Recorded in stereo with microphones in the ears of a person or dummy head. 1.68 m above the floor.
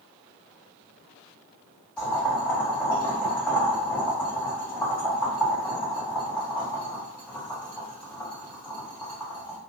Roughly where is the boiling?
Centre.